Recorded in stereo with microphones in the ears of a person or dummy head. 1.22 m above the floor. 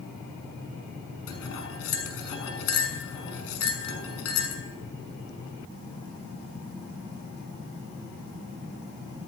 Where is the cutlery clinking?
75° left (ahead or behind), 6.5 m.